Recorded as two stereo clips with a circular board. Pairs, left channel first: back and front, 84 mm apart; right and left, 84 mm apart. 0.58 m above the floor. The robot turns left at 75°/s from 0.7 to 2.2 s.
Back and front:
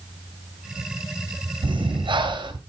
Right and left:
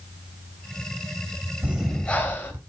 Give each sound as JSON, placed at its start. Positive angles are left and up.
{"t": 1.6, "sound": "breathing", "azimuth_deg": 25, "distance_m": 2.5}